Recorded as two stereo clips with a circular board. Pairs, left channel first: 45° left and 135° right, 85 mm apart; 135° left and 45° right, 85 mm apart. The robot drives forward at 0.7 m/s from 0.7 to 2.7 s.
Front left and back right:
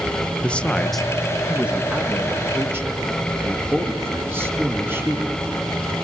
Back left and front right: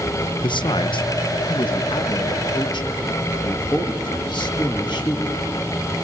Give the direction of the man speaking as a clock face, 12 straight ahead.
8 o'clock.